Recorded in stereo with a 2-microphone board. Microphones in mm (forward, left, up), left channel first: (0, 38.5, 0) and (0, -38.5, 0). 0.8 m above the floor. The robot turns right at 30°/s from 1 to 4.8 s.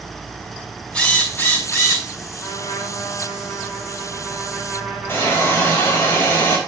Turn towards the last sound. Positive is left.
turn(degrees=30)  # may be behind; listen again after turning